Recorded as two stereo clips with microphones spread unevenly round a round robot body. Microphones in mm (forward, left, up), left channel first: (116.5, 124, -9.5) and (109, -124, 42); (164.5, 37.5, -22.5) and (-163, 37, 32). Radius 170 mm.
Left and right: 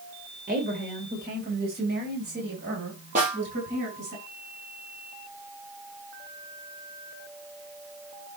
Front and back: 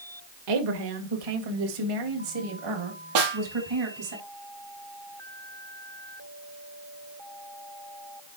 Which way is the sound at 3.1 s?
160° right.